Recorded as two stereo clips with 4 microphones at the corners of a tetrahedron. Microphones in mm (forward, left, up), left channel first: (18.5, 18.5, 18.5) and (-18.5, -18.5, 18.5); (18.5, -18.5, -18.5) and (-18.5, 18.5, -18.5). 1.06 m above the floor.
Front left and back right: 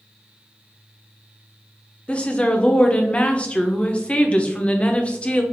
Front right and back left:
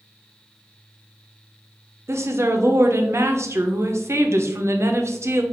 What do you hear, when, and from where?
2.1 s a woman speaking: 105° left, 0.6 m